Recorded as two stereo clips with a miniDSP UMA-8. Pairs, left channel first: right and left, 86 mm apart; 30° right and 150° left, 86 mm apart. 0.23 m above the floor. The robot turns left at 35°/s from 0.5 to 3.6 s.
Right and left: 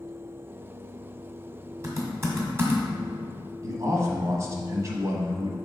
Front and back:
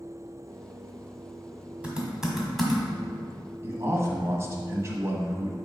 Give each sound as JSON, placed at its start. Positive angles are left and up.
{"t": 1.8, "sound": "typing on a keyboard", "azimuth_deg": 85, "distance_m": 1.6}
{"t": 3.6, "sound": "a man speaking", "azimuth_deg": 115, "distance_m": 1.4}